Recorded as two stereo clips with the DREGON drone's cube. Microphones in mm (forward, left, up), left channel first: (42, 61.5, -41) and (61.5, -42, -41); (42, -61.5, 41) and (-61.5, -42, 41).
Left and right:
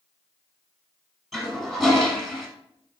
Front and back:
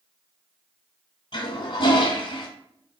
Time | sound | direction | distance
1.3 | a toilet flushing | 5° left | 1.2 m